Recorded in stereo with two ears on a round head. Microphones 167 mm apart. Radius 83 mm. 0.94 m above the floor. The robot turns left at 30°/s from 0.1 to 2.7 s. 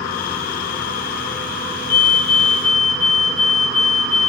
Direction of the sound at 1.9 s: 75° left (ahead or behind).